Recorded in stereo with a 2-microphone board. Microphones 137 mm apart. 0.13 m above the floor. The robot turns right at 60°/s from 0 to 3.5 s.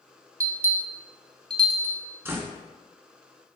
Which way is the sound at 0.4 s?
25° right (ahead or behind).